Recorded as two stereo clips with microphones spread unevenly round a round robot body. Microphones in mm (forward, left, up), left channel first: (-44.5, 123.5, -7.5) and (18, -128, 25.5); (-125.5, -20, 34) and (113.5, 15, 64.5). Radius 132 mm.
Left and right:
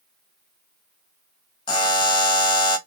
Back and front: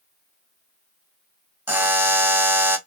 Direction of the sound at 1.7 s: 100° left.